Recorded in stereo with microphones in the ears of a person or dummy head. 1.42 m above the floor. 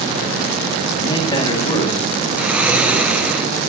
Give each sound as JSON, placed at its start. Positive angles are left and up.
{"t": 0.9, "sound": "a man speaking", "side_deg": 30, "distance_m": 2.0}
{"t": 2.4, "sound": "snoring", "side_deg": 0, "distance_m": 1.0}